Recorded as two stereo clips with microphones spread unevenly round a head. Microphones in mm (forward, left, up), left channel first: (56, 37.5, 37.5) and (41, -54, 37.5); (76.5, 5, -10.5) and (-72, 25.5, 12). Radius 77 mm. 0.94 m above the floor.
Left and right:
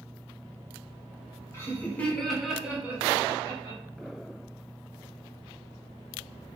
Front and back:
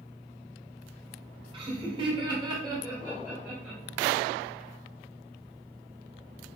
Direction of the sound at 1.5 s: 125° left.